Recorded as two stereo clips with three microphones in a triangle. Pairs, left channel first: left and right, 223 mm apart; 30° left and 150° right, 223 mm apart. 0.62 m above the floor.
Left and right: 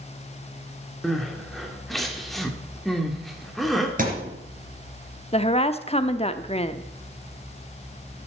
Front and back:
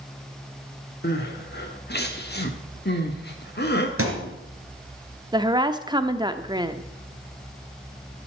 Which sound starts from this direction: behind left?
A woman speaking, at 5.3 s.